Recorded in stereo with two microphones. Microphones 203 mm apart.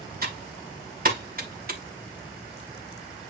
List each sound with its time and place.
0.2 s typing on a keyboard: 45° right (ahead or behind), 2 m